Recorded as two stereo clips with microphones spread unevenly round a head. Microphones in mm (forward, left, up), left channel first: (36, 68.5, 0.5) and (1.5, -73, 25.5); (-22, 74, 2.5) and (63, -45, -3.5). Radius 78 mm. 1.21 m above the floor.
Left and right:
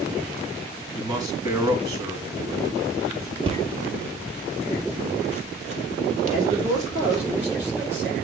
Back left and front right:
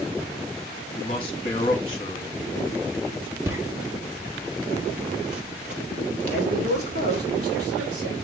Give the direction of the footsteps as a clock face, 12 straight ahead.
4 o'clock.